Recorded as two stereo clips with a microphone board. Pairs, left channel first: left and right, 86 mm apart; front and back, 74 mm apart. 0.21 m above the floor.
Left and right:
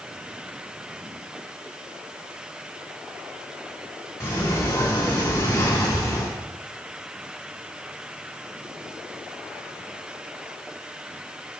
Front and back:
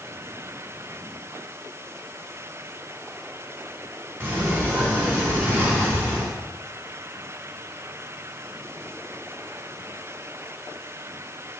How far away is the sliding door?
About 2 m.